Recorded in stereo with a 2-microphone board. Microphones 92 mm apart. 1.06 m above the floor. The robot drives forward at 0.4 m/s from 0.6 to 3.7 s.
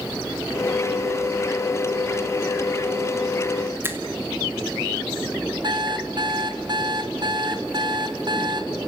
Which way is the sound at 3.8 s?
25° right (ahead or behind).